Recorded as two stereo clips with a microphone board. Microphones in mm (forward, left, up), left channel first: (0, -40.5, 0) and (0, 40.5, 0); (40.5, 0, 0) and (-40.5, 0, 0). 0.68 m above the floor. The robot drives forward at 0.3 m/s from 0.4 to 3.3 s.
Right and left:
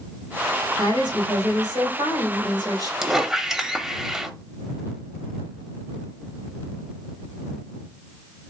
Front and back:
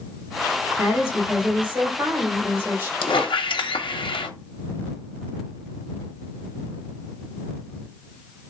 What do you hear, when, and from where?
0.8 s a woman speaking: 100° left, 2.5 m; by 2.9 s 115° left, 2.5 m
3.0 s a squeak: 5° left, 0.6 m